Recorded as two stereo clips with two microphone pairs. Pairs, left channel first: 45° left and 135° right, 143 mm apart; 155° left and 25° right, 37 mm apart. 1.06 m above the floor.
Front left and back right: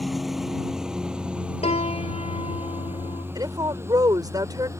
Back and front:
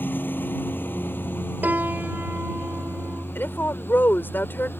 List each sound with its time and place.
0.0 s a lawn mower: 135° left; by 4.8 s 155° left
1.6 s a piano: 5° left
3.4 s a woman speaking: 160° left